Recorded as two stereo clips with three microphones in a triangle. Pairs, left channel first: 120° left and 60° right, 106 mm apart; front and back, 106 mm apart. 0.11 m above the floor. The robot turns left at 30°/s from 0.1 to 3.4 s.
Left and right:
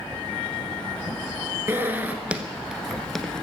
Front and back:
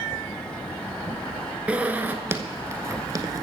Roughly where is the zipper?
Right.